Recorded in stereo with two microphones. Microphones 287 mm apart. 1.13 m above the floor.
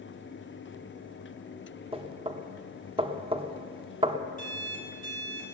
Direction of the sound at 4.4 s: 25° left (ahead or behind).